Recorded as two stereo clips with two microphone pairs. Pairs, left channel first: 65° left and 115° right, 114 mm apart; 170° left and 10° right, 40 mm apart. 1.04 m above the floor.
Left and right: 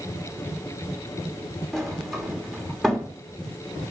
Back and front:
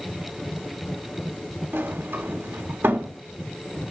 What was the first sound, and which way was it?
A sliding door, 25° right.